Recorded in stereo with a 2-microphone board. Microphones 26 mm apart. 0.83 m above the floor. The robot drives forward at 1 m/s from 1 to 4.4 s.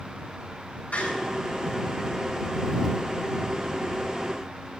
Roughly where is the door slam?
Left.